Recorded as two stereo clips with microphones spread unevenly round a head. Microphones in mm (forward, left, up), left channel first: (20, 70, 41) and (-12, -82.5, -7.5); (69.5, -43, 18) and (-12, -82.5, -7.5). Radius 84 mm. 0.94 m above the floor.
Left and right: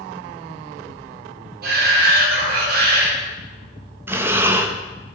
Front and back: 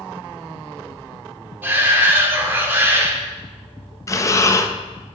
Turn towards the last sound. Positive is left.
turn(degrees=-35)